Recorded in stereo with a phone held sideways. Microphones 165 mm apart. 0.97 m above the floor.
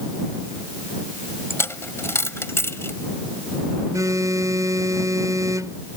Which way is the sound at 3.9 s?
20° right (ahead or behind).